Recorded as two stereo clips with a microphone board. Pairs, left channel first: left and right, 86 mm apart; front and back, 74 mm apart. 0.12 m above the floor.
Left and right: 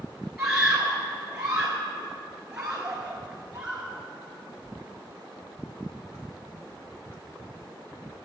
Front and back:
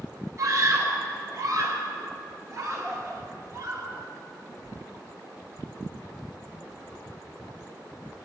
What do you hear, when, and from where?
0.4 s a scream: 165° right, 1.5 m